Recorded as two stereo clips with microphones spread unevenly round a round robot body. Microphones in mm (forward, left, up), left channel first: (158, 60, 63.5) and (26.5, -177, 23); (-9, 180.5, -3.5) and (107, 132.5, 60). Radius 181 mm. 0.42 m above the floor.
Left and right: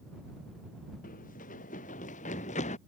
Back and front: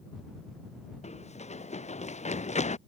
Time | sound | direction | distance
1.0 | running footsteps | 130° left | ?